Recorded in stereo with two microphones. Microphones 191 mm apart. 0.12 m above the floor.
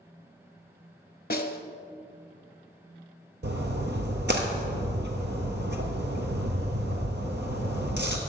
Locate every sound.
1.3 s a snare drum: 50° left (ahead or behind), 0.6 m
3.4 s a splash: 65° right (ahead or behind), 1.0 m